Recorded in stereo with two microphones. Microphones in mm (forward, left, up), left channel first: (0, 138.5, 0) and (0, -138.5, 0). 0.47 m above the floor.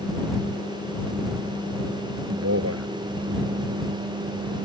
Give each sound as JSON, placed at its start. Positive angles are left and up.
{"t": 2.3, "sound": "a man speaking", "side_deg": -60}